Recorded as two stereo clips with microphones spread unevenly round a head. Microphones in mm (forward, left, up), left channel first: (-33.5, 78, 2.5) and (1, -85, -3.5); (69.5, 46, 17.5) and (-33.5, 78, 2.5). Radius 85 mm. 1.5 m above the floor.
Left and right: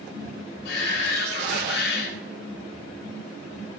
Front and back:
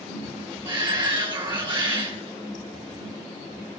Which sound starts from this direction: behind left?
A shout, at 0.7 s.